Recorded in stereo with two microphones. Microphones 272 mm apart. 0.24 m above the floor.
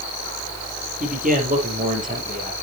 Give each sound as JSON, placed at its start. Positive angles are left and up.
{"t": 1.0, "sound": "a man speaking", "side_deg": -30, "distance_m": 5.0}